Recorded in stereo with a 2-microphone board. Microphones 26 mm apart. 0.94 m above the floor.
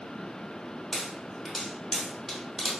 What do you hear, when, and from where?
0.9 s a pop: 10° left (ahead or behind), 1.0 m